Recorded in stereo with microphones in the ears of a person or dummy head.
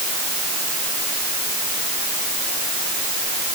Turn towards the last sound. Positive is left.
No sound to turn to.